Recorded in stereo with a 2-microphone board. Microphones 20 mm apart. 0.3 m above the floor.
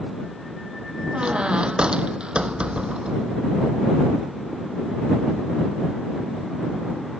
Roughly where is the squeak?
Right.